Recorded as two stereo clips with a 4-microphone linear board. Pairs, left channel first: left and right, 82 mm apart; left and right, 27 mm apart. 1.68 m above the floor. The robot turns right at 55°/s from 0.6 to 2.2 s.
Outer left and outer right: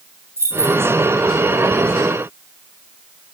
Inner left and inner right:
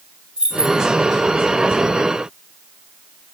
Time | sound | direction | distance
0.4 | keys jangling | 35° right (ahead or behind) | 5 m